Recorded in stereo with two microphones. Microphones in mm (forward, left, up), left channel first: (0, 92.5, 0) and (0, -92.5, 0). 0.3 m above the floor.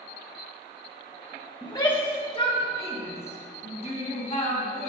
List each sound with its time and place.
1.6 s a shout: 25° left (ahead or behind), 1.6 m; by 4.9 s 40° left (ahead or behind), 3 m